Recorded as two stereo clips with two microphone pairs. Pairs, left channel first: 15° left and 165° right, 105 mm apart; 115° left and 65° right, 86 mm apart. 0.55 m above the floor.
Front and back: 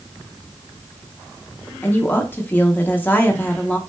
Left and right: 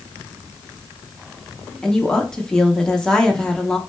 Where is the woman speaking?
45° left, 0.8 m.